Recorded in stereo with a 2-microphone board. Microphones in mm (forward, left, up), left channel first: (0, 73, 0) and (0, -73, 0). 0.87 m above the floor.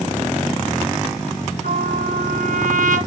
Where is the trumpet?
75° right (ahead or behind), 3 m.